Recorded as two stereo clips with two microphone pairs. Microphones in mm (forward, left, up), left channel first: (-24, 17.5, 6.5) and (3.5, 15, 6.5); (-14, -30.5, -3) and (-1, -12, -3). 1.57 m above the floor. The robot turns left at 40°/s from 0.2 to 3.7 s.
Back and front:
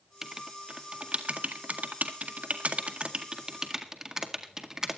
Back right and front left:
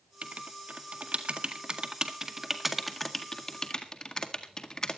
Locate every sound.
0.2 s writing: 65° left, 1.8 m; by 5.0 s 70° right, 1.8 m